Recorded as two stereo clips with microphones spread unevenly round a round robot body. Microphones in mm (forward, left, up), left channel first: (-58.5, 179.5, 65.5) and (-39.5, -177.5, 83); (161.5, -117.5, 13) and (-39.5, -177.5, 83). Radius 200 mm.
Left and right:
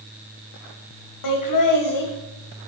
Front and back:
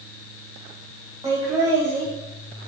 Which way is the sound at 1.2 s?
110° left.